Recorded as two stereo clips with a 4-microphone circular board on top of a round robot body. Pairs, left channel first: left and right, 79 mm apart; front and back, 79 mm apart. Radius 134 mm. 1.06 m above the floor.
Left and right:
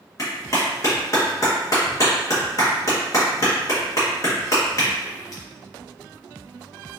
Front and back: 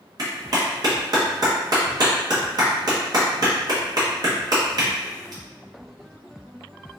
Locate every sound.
0.2 s a clap: 140° left, 1.1 m